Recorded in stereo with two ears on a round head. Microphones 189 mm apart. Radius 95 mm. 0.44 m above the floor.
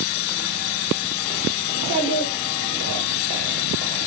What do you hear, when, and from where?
1.7 s a child speaking: 55° left (ahead or behind), 1.3 m